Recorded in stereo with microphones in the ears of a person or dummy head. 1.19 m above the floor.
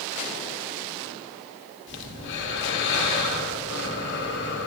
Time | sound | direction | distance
1.9 | breathing | 55° left (ahead or behind) | 1.6 m